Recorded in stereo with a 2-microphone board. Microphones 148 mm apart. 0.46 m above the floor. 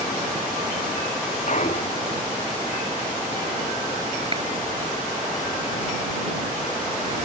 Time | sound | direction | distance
1.5 | a clunk | 55° left (ahead or behind) | ?
4.3 | a clap | 40° right (ahead or behind) | ?